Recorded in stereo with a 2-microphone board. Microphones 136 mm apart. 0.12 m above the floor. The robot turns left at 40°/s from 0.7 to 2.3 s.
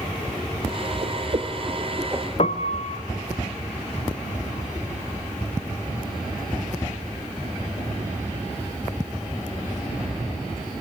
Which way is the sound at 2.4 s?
50° left (ahead or behind).